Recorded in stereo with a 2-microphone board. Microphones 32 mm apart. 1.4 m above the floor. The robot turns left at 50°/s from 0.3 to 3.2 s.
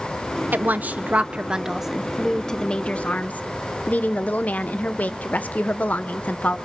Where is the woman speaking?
105° right, 0.9 m; by 6.6 s 125° left, 0.9 m.